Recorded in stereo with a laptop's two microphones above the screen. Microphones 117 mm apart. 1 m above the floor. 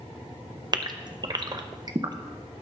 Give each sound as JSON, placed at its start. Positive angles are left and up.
{"t": 0.7, "sound": "a gasp", "side_deg": -35, "distance_m": 0.6}